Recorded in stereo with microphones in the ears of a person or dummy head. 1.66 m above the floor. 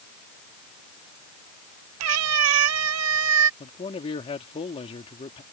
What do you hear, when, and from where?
2.0 s a cat meowing: 70° right (ahead or behind)
3.6 s a man speaking: 30° left (ahead or behind)